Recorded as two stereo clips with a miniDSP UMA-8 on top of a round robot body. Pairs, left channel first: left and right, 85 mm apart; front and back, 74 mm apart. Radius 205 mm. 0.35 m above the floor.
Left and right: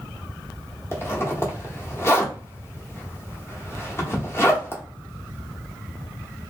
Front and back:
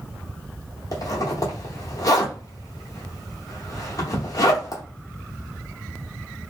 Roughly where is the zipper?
Ahead left.